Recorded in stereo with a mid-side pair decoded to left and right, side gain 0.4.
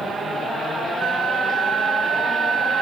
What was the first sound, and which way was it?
A flute, 65° right.